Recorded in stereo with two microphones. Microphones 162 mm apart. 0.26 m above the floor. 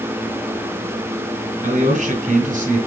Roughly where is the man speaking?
Right.